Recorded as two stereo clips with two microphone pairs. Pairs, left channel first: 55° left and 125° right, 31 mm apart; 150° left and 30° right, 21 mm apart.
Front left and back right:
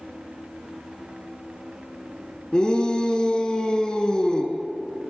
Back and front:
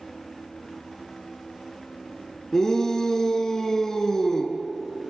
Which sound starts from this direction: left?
A shout, at 2.5 s.